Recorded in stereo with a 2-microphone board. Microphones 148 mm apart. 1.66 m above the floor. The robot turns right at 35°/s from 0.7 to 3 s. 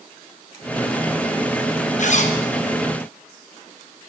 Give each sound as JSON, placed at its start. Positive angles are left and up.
{"t": 2.0, "sound": "a zipper", "side_deg": 55, "distance_m": 1.1}